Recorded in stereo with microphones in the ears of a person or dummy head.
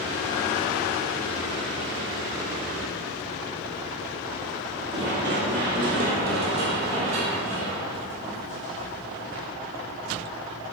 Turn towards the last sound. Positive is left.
turn(degrees=-50)  # may be behind; listen again after turning